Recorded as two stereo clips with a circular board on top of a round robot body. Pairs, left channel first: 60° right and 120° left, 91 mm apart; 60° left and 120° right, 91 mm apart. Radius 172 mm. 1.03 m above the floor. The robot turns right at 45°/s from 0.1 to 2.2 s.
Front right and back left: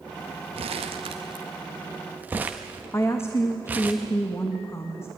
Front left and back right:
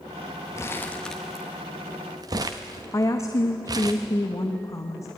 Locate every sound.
0.6 s crumpling: 120° left, 0.5 m; by 3.9 s 165° right, 0.5 m
2.9 s a woman speaking: 5° left, 1.2 m